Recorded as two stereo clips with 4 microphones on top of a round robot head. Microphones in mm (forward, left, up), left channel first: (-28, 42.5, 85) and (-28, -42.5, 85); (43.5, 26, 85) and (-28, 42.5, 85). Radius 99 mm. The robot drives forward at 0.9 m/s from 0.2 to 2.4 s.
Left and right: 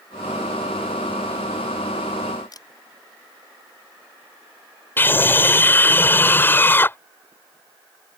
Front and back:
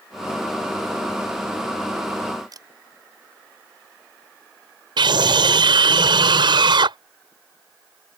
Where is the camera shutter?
135° left.